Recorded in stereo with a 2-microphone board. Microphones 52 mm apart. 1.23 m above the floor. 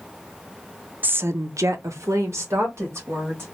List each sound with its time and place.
1.0 s a woman speaking: 35° right (ahead or behind), 0.6 m; by 3.5 s 55° right (ahead or behind), 2.5 m